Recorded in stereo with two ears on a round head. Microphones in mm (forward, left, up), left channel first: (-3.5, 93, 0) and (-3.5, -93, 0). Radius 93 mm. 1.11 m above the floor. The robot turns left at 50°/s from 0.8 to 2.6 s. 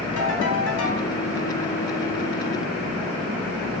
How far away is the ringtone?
About 3 m.